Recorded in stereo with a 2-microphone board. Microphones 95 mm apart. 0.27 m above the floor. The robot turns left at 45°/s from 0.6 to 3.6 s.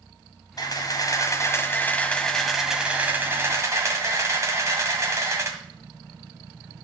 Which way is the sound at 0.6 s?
85° left.